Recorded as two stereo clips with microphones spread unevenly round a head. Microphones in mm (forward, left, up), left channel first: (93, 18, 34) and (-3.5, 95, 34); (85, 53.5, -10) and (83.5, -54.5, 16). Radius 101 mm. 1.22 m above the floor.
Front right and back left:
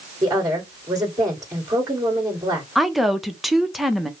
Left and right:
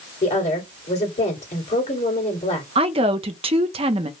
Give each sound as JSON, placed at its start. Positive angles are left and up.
{"t": 0.2, "sound": "a woman speaking", "azimuth_deg": 80, "distance_m": 2.5}
{"t": 2.8, "sound": "a woman speaking", "azimuth_deg": -130, "distance_m": 0.6}